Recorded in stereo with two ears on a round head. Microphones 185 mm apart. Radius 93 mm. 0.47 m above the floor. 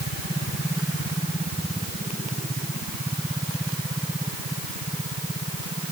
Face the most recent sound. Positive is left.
No sound to turn to.